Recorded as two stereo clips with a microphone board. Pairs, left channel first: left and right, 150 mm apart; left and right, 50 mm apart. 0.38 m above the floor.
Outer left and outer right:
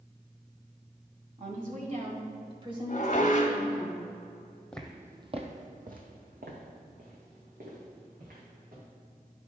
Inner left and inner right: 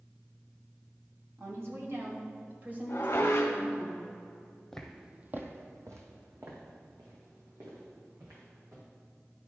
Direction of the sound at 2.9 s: 55° left (ahead or behind).